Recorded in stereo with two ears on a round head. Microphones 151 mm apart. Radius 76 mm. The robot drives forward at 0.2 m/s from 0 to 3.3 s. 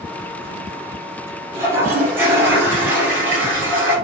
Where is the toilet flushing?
15° right (ahead or behind), 1.0 m; by 4.0 s 10° right (ahead or behind), 1.3 m.